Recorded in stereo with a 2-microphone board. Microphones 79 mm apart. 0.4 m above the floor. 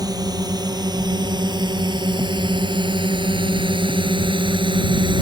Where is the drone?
50° right (ahead or behind); by 5.2 s 75° right (ahead or behind).